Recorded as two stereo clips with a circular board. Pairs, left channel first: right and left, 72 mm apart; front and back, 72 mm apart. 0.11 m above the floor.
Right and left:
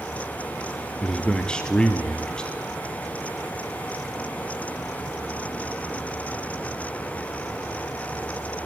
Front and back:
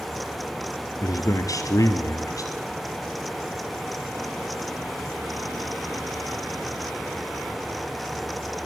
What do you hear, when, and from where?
1.0 s a man speaking: 15° right, 2.5 m